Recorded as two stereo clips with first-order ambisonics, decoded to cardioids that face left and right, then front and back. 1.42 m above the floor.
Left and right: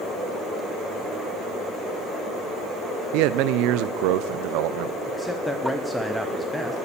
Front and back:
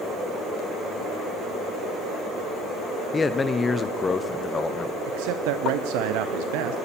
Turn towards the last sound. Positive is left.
turn(degrees=175)